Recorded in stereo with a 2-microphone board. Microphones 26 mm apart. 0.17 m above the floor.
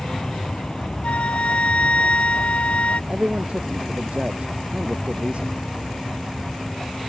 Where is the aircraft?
45° left (ahead or behind); by 7.1 s 50° left (ahead or behind).